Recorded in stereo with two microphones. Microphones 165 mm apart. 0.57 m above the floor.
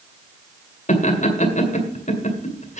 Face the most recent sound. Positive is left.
turn(degrees=45)  # may be behind; listen again after turning